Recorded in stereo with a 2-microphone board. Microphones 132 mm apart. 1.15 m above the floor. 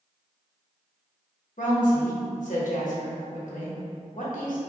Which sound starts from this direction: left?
A woman speaking, at 1.6 s.